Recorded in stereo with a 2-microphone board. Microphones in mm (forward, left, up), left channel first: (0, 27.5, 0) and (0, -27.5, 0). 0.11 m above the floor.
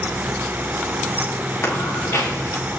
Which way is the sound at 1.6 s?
55° left (ahead or behind).